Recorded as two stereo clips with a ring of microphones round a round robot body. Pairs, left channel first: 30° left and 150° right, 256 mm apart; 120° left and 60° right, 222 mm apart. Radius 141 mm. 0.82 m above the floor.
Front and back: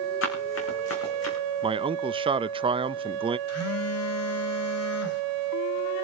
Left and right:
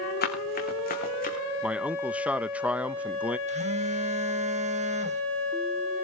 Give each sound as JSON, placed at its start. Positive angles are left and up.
{"t": 0.2, "sound": "running footsteps", "azimuth_deg": 75, "distance_m": 5.0}
{"t": 1.6, "sound": "a man speaking", "azimuth_deg": -135, "distance_m": 0.7}
{"t": 3.5, "sound": "a phone buzzing", "azimuth_deg": 0, "distance_m": 1.7}